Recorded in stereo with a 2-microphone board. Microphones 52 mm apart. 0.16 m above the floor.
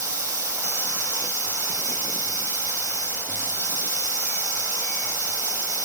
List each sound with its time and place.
0.0 s running water: 75° right (ahead or behind), 2 m